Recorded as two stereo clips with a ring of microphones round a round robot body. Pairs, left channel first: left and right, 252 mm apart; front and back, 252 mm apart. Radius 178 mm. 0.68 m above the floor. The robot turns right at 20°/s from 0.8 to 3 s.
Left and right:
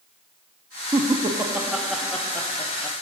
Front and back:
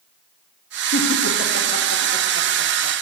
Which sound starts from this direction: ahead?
Laughter, at 0.9 s.